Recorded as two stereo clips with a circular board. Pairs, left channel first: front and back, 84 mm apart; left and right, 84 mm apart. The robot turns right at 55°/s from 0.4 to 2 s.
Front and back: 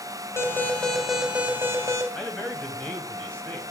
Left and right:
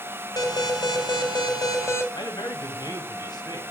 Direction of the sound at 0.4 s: 55° left.